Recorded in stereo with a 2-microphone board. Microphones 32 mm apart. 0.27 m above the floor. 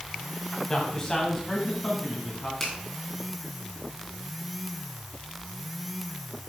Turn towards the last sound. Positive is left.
turn(degrees=15)  # may be behind; listen again after turning